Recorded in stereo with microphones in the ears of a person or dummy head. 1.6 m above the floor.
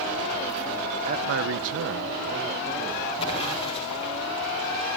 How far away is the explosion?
About 5.5 m.